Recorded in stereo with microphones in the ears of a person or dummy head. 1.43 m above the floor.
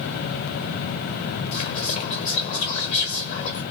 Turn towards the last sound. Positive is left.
turn(degrees=40)  # may be behind; listen again after turning